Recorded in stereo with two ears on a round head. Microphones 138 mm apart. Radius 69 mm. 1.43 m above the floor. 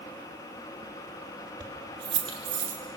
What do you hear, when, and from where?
1.6 s keys jangling: 30° right (ahead or behind), 2 m; by 2.8 s 40° right (ahead or behind), 2.5 m